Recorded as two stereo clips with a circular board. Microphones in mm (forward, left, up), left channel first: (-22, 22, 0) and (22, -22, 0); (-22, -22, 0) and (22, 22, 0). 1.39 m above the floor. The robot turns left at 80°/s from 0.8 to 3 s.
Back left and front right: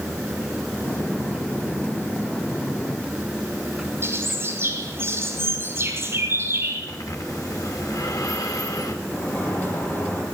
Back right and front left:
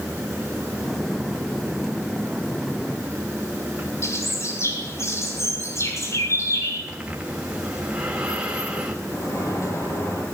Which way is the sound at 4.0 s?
95° right.